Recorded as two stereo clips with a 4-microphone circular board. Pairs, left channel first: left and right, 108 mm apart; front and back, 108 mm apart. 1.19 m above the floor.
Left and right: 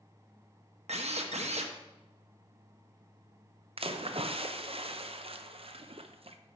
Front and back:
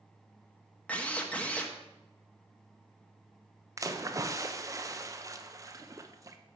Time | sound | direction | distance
0.9 | a drill | 80° right | 0.8 m
3.8 | a splash | 120° right | 0.5 m